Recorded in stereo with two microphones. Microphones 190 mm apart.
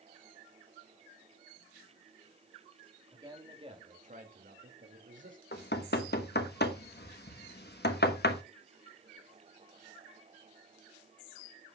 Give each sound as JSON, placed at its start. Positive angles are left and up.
{"t": 3.1, "sound": "a man speaking", "side_deg": -15, "distance_m": 3.0}
{"t": 5.5, "sound": "knocking", "side_deg": 60, "distance_m": 1.1}